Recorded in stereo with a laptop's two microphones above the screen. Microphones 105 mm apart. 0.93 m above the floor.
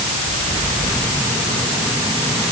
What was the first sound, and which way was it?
Only background noise.